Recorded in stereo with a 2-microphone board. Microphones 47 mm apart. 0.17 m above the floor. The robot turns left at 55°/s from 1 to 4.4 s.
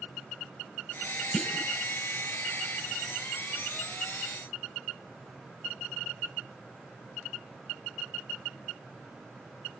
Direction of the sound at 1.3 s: 5° left (ahead or behind).